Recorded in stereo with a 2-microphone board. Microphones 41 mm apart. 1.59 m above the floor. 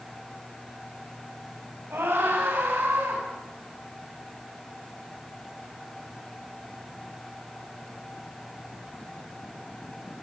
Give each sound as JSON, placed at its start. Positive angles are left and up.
{"t": 1.9, "sound": "a scream", "side_deg": -70, "distance_m": 8.5}